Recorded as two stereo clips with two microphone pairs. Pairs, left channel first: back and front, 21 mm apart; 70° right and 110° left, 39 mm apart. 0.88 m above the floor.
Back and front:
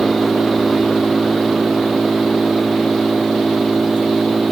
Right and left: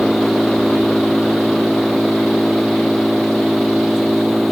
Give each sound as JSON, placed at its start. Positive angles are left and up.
{"t": 0.0, "sound": "an engine running", "azimuth_deg": 35}